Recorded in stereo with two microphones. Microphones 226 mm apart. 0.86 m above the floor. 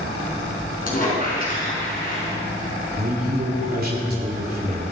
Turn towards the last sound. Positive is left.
turn(degrees=-45)  # may be behind; listen again after turning